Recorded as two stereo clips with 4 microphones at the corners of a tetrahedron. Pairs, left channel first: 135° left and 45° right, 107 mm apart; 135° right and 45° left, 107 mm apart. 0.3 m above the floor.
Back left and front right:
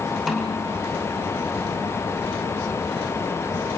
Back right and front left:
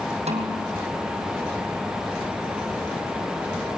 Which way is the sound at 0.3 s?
45° left.